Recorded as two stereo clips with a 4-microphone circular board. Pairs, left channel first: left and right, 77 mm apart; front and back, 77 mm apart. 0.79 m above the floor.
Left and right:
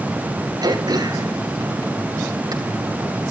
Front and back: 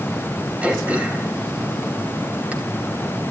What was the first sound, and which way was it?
Throat clearing, 110° right.